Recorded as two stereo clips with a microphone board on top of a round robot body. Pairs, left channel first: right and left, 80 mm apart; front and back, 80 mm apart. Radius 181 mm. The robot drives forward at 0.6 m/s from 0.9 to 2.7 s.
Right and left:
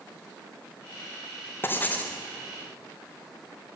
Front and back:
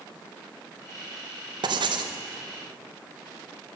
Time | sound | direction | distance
1.6 | writing | 155° right | 0.8 m